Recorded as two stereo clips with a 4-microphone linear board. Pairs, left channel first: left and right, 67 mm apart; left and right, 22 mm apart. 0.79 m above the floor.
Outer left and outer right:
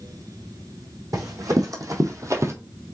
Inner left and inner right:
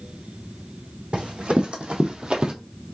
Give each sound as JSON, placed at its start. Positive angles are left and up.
{"t": 1.1, "sound": "running footsteps", "side_deg": -60, "distance_m": 1.9}